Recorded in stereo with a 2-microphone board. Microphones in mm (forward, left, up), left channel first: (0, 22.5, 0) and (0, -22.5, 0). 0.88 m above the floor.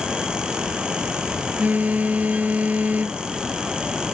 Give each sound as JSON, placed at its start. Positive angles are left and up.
{"t": 1.6, "sound": "a phone buzzing", "side_deg": -35}